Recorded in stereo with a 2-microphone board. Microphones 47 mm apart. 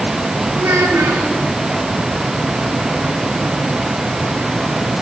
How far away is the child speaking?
About 3.5 m.